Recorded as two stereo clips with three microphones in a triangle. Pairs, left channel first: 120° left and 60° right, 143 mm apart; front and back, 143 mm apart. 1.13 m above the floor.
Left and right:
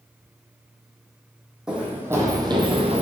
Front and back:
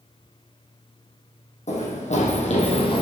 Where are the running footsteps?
25° left, 2 m; by 3.0 s 40° right, 1.7 m.